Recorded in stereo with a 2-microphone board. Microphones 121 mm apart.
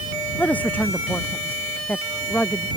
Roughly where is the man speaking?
Centre.